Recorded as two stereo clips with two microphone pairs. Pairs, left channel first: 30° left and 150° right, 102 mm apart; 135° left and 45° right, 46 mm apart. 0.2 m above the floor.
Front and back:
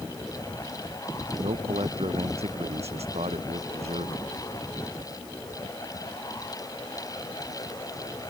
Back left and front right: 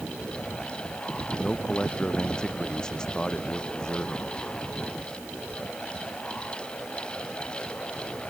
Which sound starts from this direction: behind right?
A man speaking, at 1.4 s.